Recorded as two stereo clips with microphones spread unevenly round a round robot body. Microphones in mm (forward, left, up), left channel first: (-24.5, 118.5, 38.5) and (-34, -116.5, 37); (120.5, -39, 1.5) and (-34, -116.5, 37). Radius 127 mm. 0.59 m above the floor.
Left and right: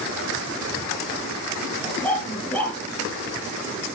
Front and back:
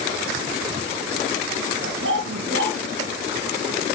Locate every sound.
1.8 s a dog barking: 170° left, 4 m